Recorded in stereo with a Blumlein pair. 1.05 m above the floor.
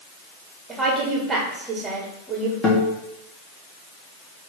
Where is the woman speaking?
10° right, 2 m.